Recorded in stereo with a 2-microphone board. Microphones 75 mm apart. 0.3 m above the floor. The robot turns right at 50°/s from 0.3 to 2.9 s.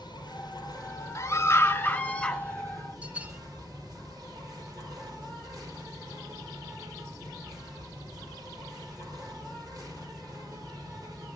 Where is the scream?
105° left, 1.2 m; by 2.4 s 170° left, 1.2 m.